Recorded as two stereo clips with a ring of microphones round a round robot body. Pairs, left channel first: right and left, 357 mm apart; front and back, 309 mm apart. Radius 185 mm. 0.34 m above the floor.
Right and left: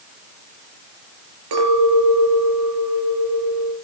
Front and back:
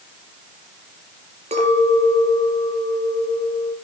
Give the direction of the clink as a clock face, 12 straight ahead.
8 o'clock.